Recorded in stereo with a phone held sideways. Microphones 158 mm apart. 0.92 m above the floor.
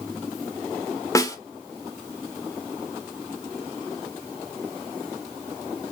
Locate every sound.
1.1 s a snare drum: 20° left (ahead or behind), 1.0 m